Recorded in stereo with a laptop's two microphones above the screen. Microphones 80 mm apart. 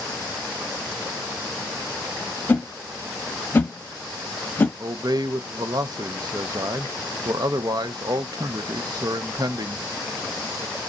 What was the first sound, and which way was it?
A whoosh, 25° left (ahead or behind).